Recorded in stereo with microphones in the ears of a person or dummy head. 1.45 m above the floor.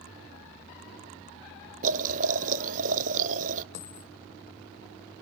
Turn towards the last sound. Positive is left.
turn(degrees=50)  # may be behind; listen again after turning